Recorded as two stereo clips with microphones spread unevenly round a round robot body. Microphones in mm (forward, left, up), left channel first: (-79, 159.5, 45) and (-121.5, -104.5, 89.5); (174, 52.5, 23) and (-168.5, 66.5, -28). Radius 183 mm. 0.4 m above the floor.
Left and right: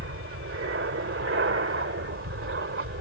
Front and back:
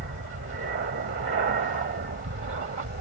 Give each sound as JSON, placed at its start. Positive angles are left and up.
{"t": 0.0, "sound": "an aircraft", "azimuth_deg": -130}